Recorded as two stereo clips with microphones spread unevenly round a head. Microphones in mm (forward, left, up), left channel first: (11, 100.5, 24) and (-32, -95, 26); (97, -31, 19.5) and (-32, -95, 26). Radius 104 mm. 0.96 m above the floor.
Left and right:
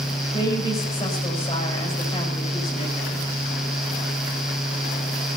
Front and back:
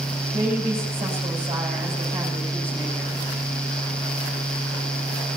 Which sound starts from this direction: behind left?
A woman speaking, at 0.3 s.